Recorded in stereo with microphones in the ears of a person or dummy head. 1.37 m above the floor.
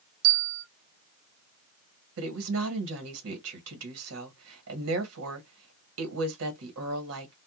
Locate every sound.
0.2 s a bell: 50° right (ahead or behind), 0.8 m
2.2 s a woman speaking: 70° right (ahead or behind), 1.4 m